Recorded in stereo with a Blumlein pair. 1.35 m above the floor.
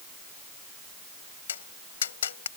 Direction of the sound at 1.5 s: 65° left.